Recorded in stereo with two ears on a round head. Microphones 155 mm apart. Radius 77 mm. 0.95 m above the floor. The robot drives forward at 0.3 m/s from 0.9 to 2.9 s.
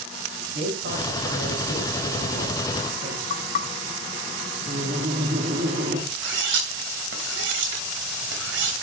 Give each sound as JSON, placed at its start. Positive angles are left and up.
{"t": 0.5, "sound": "a man speaking", "side_deg": -80, "distance_m": 5.5}
{"t": 3.3, "sound": "knocking", "side_deg": 45, "distance_m": 0.9}
{"t": 4.7, "sound": "laughter", "side_deg": -50, "distance_m": 2.5}
{"t": 6.1, "sound": "cutlery clinking", "side_deg": -75, "distance_m": 3.0}